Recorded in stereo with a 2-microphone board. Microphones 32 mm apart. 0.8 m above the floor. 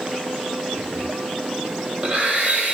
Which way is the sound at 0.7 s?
40° right (ahead or behind).